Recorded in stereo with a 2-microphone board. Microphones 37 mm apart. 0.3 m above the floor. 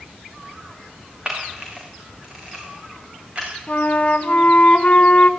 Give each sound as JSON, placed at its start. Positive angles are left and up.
{"t": 1.2, "sound": "a camera shutter", "side_deg": -30, "distance_m": 8.5}
{"t": 3.7, "sound": "a flute", "side_deg": 40, "distance_m": 1.9}